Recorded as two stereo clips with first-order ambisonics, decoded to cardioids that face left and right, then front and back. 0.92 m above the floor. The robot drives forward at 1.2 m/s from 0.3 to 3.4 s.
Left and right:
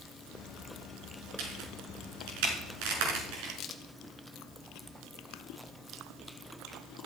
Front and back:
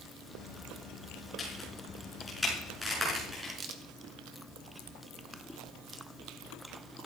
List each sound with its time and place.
1.4 s a crack: 70° right, 5 m; by 3.5 s 100° right, 5 m
3.6 s a crack: 130° left, 1.2 m